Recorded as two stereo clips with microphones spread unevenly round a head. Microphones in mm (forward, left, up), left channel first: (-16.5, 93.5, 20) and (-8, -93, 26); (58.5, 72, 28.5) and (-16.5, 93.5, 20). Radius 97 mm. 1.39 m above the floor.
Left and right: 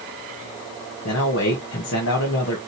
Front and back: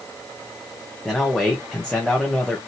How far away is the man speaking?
About 1.3 m.